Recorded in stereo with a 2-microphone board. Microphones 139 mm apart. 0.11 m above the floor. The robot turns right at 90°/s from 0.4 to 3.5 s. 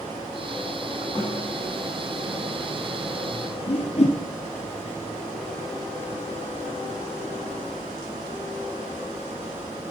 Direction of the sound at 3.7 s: 55° left (ahead or behind).